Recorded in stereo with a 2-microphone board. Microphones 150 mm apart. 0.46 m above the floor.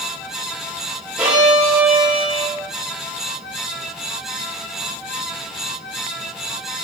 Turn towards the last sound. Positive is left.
turn(degrees=-10)  # may be behind; listen again after turning